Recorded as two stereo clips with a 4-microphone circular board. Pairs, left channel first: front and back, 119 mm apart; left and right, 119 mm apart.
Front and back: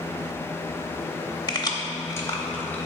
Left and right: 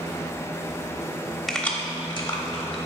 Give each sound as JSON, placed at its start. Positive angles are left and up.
{"t": 1.5, "sound": "keys jangling", "azimuth_deg": 0, "distance_m": 0.8}